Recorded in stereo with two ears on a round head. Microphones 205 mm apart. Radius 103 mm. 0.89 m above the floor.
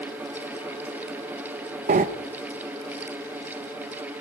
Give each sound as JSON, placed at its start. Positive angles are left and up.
{"t": 1.9, "sound": "breathing", "side_deg": -35, "distance_m": 0.7}